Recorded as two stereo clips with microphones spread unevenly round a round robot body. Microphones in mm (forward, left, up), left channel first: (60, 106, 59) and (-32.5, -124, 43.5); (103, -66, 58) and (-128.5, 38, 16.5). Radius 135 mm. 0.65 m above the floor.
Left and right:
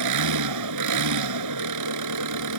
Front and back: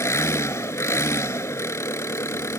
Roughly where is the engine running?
Right.